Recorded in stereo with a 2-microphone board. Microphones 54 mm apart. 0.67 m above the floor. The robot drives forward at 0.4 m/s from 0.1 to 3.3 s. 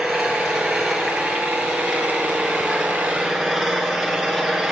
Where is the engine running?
Centre (ahead or behind), 7 m.